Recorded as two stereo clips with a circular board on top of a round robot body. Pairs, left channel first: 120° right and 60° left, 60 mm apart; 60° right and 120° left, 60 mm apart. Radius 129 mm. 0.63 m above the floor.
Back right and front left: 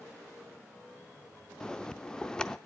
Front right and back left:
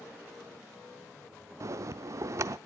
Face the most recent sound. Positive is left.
turn(degrees=160)